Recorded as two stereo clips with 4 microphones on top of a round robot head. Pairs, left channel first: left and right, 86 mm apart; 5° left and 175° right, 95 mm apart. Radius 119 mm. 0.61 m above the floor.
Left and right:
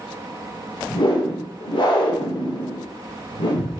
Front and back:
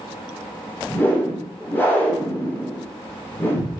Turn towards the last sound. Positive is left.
turn(degrees=70)